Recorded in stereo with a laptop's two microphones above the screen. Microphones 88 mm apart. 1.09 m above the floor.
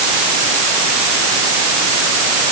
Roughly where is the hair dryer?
I don't hear a hair dryer.